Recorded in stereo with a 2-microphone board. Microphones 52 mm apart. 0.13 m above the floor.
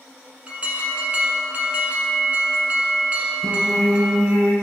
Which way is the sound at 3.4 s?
70° right (ahead or behind).